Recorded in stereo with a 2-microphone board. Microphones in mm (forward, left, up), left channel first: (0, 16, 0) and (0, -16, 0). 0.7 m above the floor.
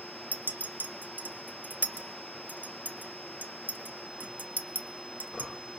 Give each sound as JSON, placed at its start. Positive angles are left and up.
{"t": 0.3, "sound": "a clink", "side_deg": -85, "distance_m": 0.6}